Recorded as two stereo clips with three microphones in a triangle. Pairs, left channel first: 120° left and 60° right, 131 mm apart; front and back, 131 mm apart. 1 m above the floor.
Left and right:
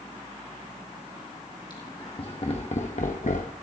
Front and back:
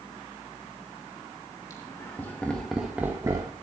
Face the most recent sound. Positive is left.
turn(degrees=125)